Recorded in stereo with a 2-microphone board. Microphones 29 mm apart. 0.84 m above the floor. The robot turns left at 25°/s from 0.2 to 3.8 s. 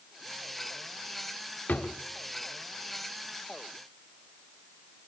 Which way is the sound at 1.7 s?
80° left.